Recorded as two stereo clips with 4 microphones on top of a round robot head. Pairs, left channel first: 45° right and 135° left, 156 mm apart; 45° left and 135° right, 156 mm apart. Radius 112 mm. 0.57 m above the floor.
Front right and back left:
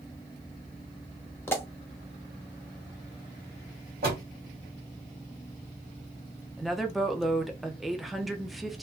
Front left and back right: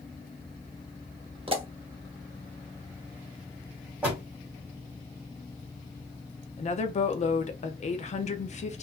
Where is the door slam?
145° left, 2 m.